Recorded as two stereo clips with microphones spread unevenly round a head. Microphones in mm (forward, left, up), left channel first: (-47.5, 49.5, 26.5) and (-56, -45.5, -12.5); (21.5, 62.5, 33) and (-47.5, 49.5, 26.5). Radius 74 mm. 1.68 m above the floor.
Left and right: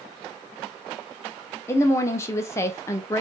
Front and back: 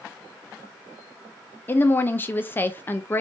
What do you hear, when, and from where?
1.7 s a woman speaking: 60° left, 0.5 m